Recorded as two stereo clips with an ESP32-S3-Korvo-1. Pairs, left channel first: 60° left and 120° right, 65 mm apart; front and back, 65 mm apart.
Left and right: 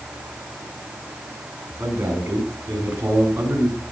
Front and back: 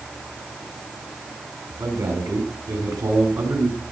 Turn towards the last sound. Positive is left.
turn(degrees=170)